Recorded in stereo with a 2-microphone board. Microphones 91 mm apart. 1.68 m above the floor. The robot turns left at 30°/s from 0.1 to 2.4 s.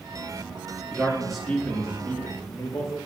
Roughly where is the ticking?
No ticking in this recording.